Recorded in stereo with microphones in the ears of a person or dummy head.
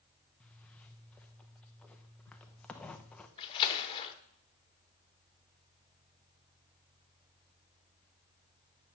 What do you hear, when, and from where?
0.4 s a zipper: 10° left (ahead or behind), 0.9 m
3.4 s a splash: 25° left (ahead or behind), 1.2 m